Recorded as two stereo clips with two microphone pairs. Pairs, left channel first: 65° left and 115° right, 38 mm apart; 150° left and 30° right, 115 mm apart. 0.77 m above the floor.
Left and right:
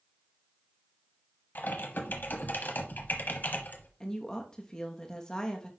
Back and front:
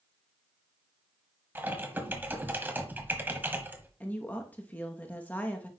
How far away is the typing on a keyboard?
About 1.1 m.